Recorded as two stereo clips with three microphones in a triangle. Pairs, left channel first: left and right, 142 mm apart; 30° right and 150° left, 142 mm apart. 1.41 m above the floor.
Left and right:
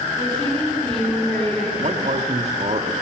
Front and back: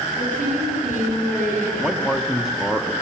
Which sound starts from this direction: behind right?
A man speaking, at 1.8 s.